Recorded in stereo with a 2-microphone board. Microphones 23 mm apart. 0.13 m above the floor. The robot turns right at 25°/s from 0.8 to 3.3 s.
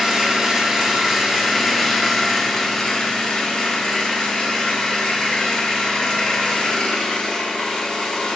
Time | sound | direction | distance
0.0 | an engine running | 20° right | 0.8 m